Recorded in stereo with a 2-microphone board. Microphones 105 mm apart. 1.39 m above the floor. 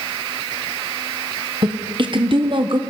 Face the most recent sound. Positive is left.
turn(degrees=-50)  # may be behind; listen again after turning